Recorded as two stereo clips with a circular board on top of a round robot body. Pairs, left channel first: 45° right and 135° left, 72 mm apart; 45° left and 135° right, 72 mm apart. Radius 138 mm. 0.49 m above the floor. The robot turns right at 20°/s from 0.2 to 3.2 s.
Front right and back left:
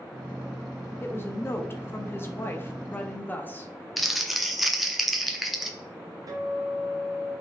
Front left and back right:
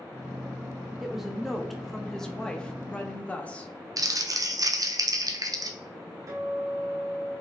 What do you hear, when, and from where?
1.0 s a woman speaking: 55° right, 0.7 m; by 3.7 s 10° right, 0.7 m
4.0 s crumpling: 135° right, 0.6 m
6.3 s a guitar: 175° left, 0.6 m